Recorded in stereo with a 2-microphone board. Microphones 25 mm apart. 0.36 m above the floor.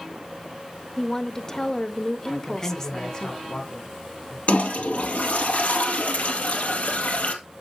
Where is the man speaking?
30° left (ahead or behind), 3 m.